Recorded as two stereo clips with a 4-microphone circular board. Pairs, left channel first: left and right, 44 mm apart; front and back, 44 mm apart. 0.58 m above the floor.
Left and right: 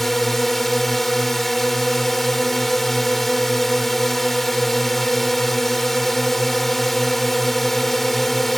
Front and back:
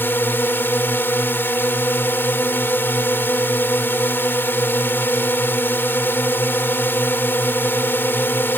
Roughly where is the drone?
Ahead.